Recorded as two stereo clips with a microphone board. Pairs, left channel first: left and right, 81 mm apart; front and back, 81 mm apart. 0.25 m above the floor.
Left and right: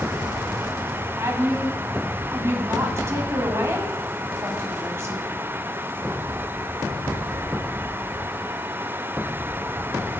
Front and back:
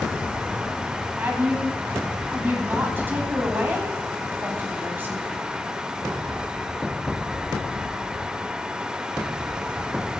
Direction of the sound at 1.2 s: 125° right.